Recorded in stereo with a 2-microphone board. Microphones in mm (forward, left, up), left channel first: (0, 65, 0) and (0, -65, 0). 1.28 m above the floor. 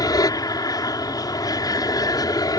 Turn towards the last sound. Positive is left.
turn(degrees=30)  # may be behind; listen again after turning